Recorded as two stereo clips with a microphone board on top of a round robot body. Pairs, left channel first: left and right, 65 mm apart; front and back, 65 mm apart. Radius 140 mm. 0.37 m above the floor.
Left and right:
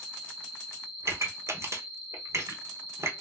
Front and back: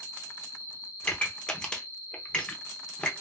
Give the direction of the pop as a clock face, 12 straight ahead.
2 o'clock.